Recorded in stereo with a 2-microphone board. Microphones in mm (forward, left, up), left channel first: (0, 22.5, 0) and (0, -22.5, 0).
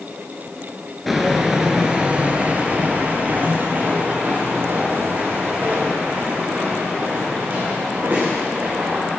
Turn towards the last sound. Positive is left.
turn(degrees=-40)  # may be behind; listen again after turning